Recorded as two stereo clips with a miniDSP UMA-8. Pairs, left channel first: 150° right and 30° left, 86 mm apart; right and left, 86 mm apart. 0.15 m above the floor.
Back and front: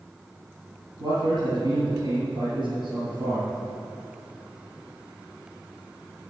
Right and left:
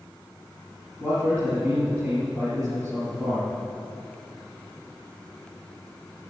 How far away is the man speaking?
About 3 m.